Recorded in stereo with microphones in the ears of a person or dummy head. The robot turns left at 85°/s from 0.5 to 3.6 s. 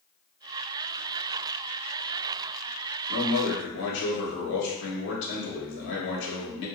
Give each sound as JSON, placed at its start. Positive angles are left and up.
{"t": 3.1, "sound": "a man speaking", "azimuth_deg": 110, "distance_m": 1.2}